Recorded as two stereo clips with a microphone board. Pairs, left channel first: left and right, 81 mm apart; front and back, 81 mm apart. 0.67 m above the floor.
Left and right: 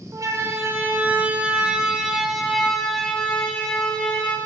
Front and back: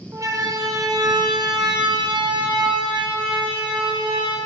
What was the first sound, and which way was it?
A siren, 135° right.